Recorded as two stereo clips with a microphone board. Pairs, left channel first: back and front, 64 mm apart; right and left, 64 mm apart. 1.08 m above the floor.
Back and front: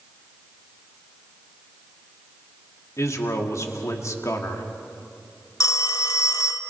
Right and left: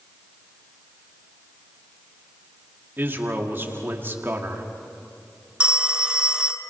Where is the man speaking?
145° left, 2 m.